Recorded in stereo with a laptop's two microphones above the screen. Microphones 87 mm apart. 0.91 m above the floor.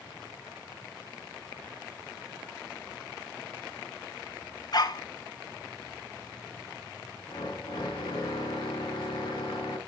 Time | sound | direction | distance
4.7 | a dog barking | 50° left (ahead or behind) | 1.4 m
7.3 | a drill | 55° left (ahead or behind) | 4.5 m